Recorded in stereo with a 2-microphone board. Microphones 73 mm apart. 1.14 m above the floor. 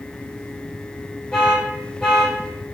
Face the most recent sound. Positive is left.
turn(degrees=10)  # may be behind; listen again after turning